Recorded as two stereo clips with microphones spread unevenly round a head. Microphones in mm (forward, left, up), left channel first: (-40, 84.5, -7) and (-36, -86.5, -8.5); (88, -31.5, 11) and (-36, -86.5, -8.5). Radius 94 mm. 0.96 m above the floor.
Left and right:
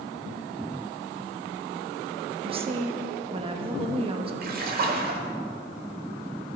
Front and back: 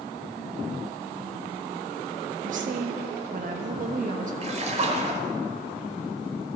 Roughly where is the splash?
Behind right.